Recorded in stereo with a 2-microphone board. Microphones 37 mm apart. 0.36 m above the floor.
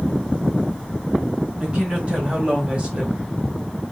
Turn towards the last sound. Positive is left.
turn(degrees=-25)  # may be behind; listen again after turning